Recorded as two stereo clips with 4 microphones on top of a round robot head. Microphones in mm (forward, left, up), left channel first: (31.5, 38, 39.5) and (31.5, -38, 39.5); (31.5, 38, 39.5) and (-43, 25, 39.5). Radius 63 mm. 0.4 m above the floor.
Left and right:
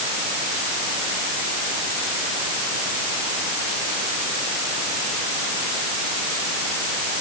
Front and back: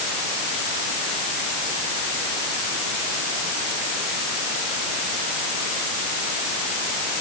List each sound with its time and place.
Only background noise.